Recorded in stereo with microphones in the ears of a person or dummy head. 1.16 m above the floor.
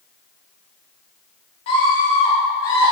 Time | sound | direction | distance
1.7 | a scream | 30° left (ahead or behind) | 2.5 m